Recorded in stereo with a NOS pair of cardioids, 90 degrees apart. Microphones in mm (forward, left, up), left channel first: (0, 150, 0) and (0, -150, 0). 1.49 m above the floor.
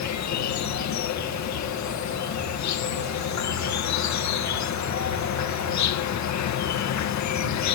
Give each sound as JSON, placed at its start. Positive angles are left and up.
{"t": 0.0, "sound": "an insect", "azimuth_deg": 70}